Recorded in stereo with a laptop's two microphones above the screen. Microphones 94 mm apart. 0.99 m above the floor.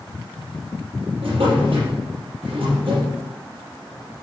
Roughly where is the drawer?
Right.